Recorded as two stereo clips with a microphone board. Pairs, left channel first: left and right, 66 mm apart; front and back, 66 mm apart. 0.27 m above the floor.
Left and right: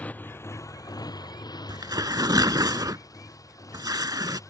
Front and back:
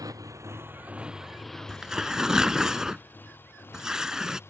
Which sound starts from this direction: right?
Tearing paper, at 1.7 s.